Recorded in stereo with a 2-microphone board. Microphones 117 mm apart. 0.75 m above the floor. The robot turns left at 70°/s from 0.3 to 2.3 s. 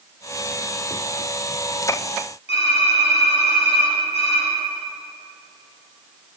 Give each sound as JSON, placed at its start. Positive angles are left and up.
{"t": 2.5, "sound": "typing on a keyboard", "side_deg": 60, "distance_m": 5.5}